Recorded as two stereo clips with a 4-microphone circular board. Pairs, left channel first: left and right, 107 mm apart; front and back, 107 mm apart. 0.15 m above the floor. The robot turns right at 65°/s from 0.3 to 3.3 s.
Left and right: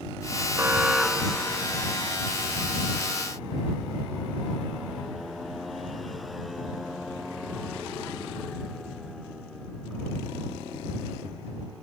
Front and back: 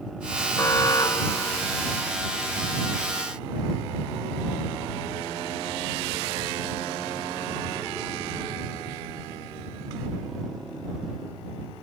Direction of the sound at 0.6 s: 40° right.